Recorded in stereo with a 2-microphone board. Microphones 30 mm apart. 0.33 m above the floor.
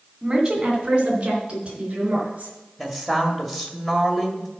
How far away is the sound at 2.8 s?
About 1.7 m.